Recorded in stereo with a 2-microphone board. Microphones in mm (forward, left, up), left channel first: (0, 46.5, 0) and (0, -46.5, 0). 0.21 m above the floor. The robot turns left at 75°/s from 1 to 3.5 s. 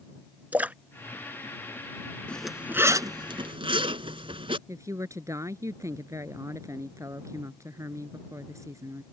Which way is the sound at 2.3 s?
15° left (ahead or behind).